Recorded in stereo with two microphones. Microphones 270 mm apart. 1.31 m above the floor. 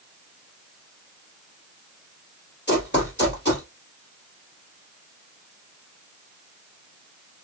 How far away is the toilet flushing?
No toilet flushing in this recording.